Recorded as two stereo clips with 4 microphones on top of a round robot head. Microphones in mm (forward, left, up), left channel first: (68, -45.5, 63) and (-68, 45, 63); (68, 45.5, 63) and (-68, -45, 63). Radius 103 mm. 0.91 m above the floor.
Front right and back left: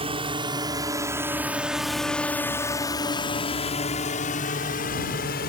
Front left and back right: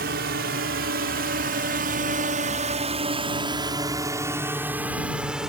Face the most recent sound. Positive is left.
turn(degrees=-60)